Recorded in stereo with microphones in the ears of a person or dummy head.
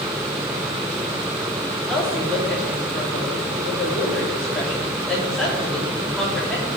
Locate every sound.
1.9 s a woman speaking: 5° left (ahead or behind), 3.5 m